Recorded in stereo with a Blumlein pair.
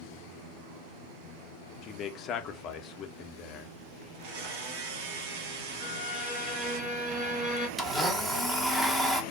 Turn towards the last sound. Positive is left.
turn(degrees=-10)